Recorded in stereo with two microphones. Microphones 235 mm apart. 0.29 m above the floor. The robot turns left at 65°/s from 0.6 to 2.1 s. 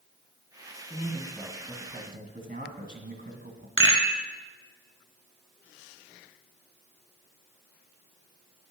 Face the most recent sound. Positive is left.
turn(degrees=-55)  # may be behind; listen again after turning